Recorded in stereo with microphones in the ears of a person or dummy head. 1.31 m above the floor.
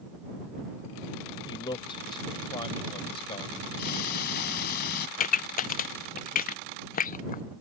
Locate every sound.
1.5 s a man speaking: 25° left (ahead or behind); by 3.6 s 30° left (ahead or behind)
3.8 s ticking: 55° left (ahead or behind)
5.2 s a pop: 40° left (ahead or behind)